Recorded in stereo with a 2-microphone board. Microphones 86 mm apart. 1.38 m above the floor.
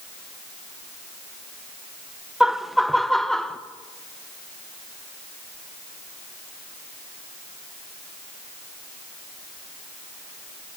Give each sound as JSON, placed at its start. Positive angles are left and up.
{"t": 2.4, "sound": "laughter", "side_deg": -5, "distance_m": 1.1}